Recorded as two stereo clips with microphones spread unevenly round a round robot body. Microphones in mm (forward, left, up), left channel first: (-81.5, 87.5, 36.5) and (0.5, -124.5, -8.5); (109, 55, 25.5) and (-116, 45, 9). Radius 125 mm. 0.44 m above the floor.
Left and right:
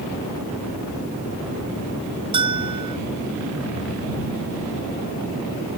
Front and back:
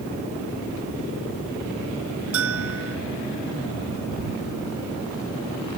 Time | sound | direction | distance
2.3 | a bell | 135° right | ?